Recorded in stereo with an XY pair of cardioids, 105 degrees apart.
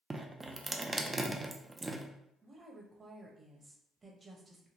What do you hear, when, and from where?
0.1 s dripping: 20° right, 0.5 m
2.4 s a woman speaking: 30° right, 1.1 m